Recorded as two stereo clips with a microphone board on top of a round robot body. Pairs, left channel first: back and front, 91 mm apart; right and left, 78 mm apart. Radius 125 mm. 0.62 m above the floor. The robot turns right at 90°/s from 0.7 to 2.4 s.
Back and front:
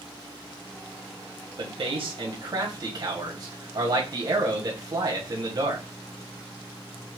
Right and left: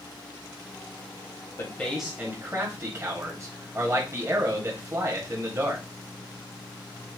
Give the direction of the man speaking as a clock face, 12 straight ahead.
1 o'clock.